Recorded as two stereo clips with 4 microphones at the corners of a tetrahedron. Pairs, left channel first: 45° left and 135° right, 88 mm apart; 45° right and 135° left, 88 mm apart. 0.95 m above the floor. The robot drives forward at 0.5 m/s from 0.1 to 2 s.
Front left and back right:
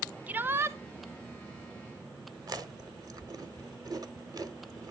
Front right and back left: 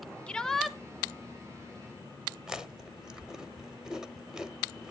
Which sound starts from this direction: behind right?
Chewing, at 2.5 s.